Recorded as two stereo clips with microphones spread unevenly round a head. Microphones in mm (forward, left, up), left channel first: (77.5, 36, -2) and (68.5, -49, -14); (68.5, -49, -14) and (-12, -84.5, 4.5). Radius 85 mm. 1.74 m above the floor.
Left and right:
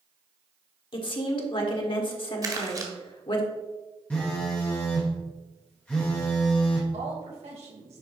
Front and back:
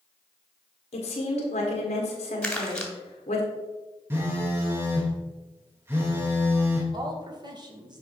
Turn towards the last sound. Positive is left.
turn(degrees=-120)